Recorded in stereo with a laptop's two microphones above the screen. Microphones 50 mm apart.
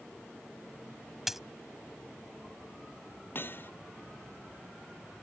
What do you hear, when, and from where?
1.3 s a dropped coin: 5° right (ahead or behind)
3.4 s hammering: 45° left (ahead or behind)